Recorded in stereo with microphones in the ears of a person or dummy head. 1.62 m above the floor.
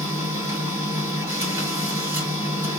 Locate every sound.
0.0 s a machine running: 20° right (ahead or behind), 2.5 m